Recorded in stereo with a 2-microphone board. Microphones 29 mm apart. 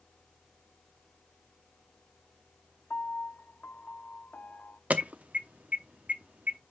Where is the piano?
70° left (ahead or behind), 0.5 m.